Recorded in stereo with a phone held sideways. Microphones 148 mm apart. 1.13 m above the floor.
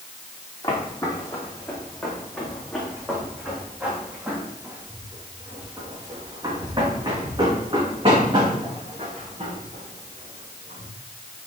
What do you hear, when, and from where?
0.6 s footsteps: 25° left (ahead or behind), 3.5 m; by 10.9 s 50° right (ahead or behind), 5.5 m